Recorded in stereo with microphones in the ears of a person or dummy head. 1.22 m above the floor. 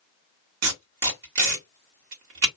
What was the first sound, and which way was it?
Tape being pulled, 65° right (ahead or behind).